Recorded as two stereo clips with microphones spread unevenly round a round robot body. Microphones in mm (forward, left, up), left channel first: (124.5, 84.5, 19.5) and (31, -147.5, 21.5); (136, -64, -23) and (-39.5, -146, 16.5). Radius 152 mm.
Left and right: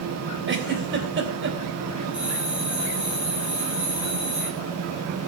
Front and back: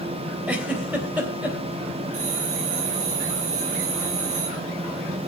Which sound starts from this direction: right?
A giggle, at 0.5 s.